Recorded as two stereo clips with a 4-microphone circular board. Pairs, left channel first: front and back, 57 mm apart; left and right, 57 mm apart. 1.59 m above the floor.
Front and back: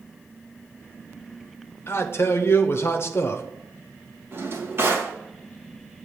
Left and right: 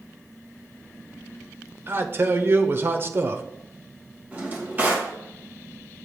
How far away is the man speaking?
About 0.7 m.